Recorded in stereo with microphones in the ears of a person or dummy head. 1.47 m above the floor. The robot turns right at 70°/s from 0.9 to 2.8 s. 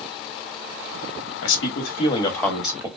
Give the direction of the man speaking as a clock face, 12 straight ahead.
9 o'clock.